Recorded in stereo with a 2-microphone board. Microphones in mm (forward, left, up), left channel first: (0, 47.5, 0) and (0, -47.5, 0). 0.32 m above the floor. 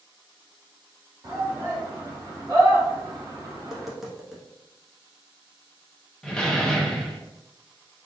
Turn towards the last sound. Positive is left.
turn(degrees=10)  # may be behind; listen again after turning